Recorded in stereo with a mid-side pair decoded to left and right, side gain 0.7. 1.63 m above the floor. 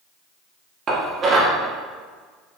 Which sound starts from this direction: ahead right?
Dishes clattering, at 0.9 s.